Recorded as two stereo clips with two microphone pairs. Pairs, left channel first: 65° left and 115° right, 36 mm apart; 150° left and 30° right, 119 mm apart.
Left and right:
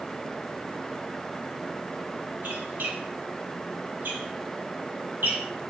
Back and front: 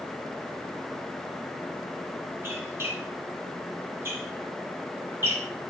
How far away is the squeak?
About 2.5 m.